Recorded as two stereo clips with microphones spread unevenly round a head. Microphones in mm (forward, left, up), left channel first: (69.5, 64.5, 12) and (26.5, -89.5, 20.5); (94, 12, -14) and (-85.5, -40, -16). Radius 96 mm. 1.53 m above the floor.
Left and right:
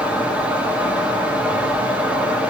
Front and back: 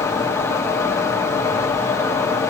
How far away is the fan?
About 0.8 m.